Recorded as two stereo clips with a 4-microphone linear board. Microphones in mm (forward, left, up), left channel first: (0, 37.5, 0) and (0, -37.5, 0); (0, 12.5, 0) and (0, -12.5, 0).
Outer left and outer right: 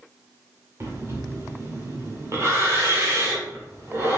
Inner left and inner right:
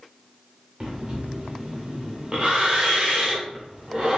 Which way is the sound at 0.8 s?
40° right (ahead or behind).